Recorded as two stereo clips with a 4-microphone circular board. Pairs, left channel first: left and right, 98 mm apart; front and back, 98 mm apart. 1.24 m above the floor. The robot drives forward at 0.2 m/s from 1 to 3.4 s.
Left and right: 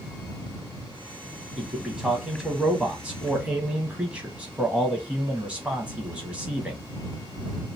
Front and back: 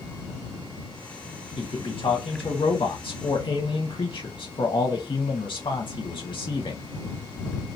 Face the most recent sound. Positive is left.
turn(degrees=-15)